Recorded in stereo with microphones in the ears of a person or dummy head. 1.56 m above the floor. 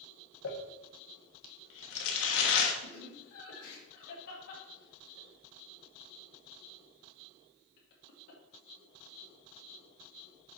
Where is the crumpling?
65° left (ahead or behind), 1.1 m.